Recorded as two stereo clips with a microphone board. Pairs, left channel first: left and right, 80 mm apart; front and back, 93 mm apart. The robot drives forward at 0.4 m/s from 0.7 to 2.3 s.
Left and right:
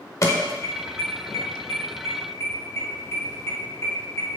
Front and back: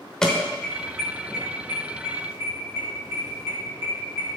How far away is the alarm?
About 1.0 m.